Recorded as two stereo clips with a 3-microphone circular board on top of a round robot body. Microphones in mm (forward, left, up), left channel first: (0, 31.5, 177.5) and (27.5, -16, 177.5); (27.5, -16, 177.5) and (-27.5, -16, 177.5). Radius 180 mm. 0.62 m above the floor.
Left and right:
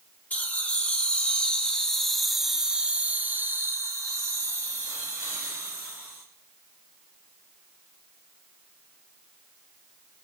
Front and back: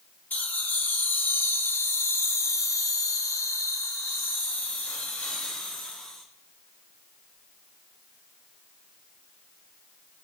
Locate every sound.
0.3 s laughter: 60° left, 2.5 m; by 6.2 s 75° right, 2.5 m